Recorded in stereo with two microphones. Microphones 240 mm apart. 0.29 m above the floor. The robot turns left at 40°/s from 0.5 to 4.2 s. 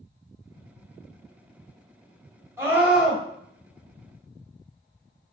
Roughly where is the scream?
Centre.